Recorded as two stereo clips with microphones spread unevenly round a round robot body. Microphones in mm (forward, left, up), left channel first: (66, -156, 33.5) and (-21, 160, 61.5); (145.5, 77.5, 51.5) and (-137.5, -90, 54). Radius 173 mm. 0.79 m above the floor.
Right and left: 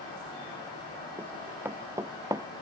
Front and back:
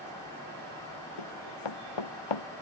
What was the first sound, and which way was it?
Running footsteps, 20° left.